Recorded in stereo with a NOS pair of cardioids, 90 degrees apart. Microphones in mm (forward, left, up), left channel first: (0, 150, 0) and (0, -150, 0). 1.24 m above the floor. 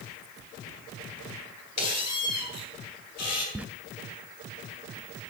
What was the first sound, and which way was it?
A squeak, 60° left.